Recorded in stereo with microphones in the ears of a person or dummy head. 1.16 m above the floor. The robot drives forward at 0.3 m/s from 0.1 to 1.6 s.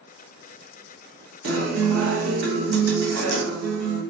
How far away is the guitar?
About 1.1 m.